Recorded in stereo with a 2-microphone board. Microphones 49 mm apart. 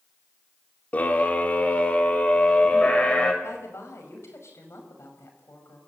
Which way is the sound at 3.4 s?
70° left (ahead or behind).